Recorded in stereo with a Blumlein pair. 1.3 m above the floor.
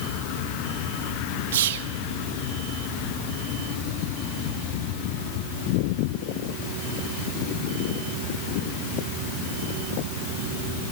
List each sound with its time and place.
1.5 s whispering: 55° right, 1.8 m